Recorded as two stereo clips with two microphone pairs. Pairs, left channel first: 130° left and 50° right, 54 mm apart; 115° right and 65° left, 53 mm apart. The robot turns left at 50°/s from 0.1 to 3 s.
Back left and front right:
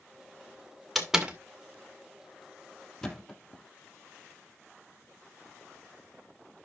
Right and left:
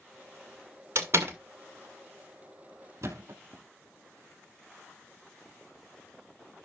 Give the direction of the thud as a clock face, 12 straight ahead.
10 o'clock.